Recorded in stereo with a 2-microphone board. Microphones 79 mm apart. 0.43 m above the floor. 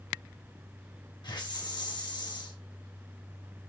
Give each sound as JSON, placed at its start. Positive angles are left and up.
{"t": 1.2, "sound": "a hiss", "side_deg": 65, "distance_m": 0.8}